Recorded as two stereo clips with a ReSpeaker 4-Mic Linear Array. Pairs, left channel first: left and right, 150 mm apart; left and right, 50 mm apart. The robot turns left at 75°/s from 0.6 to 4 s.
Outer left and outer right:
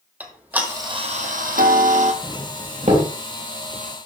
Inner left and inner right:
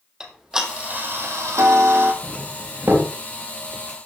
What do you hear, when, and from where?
0.2 s ticking: 10° right, 2 m; by 2.1 s 125° right, 2 m
2.2 s a doorbell: 20° right (ahead or behind), 3 m; by 3.1 s 55° right (ahead or behind), 3 m